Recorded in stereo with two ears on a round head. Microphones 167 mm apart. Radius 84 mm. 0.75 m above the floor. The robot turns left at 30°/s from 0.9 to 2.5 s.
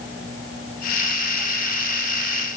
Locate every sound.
Only background noise.